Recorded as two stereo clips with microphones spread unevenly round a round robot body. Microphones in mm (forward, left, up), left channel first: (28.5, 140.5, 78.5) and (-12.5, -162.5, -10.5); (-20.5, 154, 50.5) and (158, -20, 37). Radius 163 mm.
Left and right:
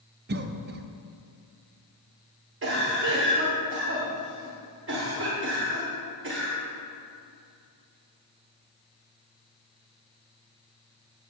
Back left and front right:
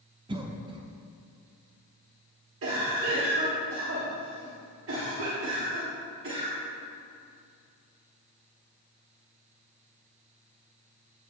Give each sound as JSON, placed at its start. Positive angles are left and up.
{"t": 0.3, "sound": "a cough", "azimuth_deg": -105, "distance_m": 0.6}
{"t": 2.6, "sound": "a cough", "azimuth_deg": -65, "distance_m": 1.5}